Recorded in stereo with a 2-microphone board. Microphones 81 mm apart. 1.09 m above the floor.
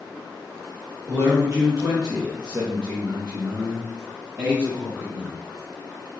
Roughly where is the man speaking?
Right.